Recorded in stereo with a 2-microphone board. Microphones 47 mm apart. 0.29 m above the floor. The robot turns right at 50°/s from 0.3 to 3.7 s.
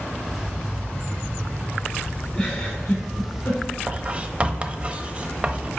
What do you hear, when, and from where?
2.3 s a giggle: 20° left (ahead or behind), 1.8 m; by 3.6 s 70° left (ahead or behind), 1.8 m
3.9 s writing: 30° right (ahead or behind), 0.6 m